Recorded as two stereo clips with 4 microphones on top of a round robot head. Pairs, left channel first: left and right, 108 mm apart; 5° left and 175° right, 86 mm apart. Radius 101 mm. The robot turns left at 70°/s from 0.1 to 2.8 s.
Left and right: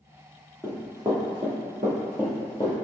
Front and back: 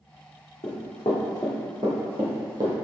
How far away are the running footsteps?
About 1.2 m.